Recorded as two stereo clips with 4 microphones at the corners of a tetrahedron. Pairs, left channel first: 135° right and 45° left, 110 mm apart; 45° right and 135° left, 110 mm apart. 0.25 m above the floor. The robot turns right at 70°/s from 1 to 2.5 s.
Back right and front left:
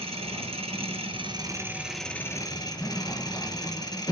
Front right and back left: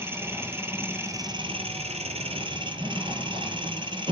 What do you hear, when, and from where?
0.0 s an engine running: 70° left, 1.6 m; by 4.1 s 175° left, 1.6 m